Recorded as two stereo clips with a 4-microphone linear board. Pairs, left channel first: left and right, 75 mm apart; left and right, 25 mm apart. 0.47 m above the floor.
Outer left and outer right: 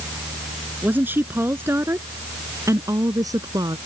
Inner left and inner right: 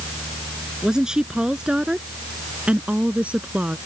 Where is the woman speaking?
25° right (ahead or behind); by 3.8 s 65° right (ahead or behind).